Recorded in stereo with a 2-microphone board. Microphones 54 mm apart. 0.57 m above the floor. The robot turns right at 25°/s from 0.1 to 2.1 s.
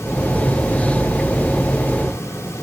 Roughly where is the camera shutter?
No camera shutter in this recording.